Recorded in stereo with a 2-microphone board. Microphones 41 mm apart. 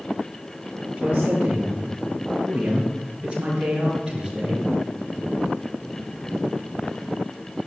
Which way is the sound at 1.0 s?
30° right (ahead or behind).